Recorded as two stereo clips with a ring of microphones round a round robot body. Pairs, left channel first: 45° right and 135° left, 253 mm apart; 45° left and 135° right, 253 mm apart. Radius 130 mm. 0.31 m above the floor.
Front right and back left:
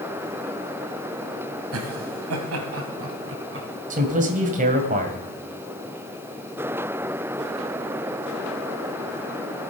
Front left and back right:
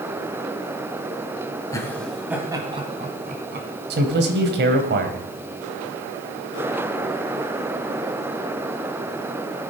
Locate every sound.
1.7 s laughter: 120° left, 2.5 m; by 3.7 s 175° left, 3.5 m
3.9 s a man speaking: 175° right, 1.9 m